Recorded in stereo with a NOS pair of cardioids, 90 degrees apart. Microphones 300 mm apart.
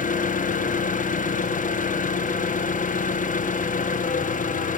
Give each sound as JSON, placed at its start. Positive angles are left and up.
{"t": 0.0, "sound": "an engine running", "azimuth_deg": 25, "distance_m": 1.0}